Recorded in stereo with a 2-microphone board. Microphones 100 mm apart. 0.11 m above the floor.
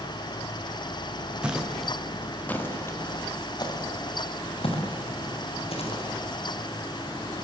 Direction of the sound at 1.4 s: 10° right (ahead or behind).